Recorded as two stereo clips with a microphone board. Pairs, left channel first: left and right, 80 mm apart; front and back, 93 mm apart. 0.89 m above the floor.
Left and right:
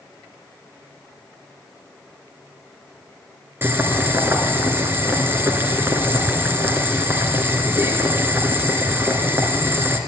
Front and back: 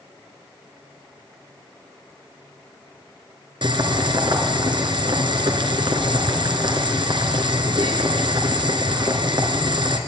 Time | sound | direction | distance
3.6 | boiling | 150° right | 2 m